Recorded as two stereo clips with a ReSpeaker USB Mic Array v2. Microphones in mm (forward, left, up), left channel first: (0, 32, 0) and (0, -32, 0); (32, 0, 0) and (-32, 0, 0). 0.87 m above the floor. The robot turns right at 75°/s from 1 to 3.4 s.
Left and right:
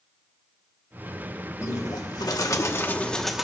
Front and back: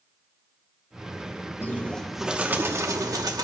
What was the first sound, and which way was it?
A bird, 50° left.